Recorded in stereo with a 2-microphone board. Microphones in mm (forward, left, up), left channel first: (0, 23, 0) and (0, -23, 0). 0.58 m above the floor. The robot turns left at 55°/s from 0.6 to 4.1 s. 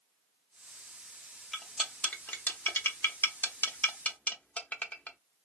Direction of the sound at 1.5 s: Centre (ahead or behind).